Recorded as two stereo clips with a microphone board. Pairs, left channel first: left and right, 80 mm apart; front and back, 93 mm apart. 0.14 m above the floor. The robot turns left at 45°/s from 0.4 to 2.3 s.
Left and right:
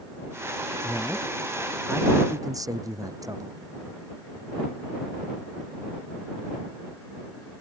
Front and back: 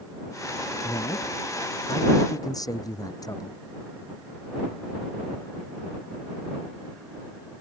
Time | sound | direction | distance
0.8 | a man speaking | 20° left | ?